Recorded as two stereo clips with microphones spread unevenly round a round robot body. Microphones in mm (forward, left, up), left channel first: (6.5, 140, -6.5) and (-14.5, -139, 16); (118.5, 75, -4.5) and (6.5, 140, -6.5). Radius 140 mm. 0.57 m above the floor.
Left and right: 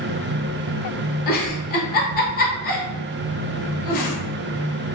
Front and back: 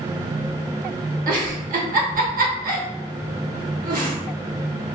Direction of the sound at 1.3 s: 145° left.